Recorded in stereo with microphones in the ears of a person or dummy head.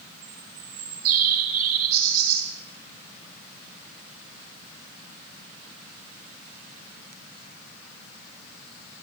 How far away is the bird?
About 4 m.